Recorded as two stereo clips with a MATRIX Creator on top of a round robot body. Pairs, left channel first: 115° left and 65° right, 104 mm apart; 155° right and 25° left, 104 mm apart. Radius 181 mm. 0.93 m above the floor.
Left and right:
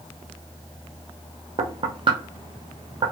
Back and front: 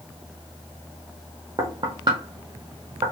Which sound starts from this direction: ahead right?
Knocking, at 1.6 s.